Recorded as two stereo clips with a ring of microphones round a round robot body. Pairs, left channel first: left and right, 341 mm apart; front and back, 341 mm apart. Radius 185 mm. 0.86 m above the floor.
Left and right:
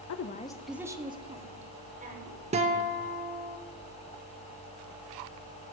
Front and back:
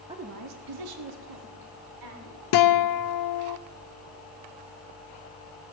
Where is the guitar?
20° right, 0.7 m.